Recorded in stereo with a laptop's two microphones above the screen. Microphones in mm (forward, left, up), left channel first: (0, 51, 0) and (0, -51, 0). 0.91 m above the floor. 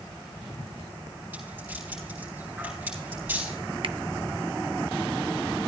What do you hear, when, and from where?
1.3 s a rattle: 20° right (ahead or behind), 8 m
3.8 s a finger snap: 55° right (ahead or behind), 0.6 m